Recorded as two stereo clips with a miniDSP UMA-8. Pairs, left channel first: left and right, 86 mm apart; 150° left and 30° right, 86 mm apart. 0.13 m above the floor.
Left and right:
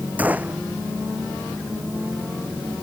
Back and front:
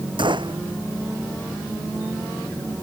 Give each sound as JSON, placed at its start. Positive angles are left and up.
{"t": 0.2, "sound": "a gunshot", "azimuth_deg": -20}